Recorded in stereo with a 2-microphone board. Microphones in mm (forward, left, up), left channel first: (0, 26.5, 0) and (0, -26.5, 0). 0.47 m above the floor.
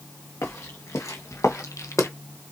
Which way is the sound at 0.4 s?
80° left.